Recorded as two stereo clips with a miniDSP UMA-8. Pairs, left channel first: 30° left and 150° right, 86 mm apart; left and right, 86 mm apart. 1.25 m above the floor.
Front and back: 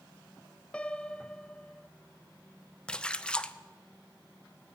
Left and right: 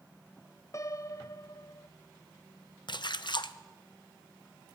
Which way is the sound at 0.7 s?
100° left.